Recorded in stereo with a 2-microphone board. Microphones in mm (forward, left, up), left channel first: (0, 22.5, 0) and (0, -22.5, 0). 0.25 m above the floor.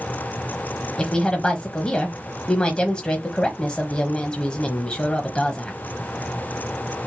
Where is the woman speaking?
20° left (ahead or behind), 1.1 m.